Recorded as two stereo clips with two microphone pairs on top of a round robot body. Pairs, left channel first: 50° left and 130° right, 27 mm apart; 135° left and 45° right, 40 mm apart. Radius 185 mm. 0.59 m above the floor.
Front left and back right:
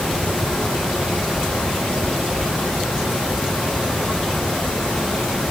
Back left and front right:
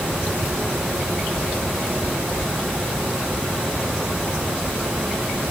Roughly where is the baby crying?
I don't hear a baby crying.